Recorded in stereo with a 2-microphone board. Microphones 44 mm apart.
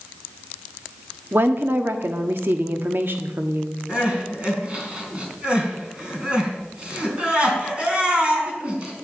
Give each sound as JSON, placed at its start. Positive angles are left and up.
{"t": 1.3, "sound": "a woman speaking", "side_deg": -55, "distance_m": 1.3}
{"t": 3.9, "sound": "crying", "side_deg": -25, "distance_m": 4.0}